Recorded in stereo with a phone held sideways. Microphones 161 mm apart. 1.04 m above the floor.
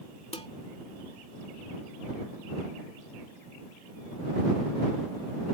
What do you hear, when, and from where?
0.3 s dishes clattering: 40° left (ahead or behind)